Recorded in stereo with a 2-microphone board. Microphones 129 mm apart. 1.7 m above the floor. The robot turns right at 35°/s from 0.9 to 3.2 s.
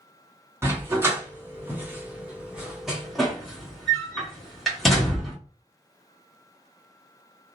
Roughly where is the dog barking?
Centre.